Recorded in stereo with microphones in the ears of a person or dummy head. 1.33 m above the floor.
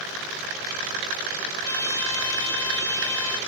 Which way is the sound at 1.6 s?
25° left (ahead or behind).